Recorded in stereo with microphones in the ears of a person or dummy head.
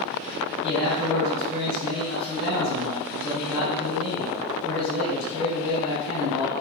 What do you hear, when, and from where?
0.6 s a man speaking: 80° left, 1.5 m